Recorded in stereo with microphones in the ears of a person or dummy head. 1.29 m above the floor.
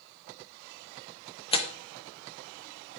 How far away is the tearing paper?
About 0.9 m.